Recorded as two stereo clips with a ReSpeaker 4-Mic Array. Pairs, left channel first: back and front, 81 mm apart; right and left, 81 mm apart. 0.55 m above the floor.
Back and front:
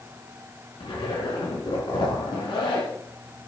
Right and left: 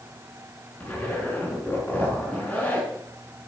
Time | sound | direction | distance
0.8 | a zipper | 165° right | 4 m